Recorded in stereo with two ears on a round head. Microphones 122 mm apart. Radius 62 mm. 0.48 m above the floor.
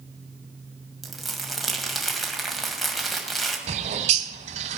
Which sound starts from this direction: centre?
Crumpling, at 1.0 s.